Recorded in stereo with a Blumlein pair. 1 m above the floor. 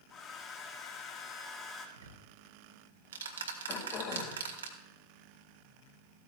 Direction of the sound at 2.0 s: 65° right.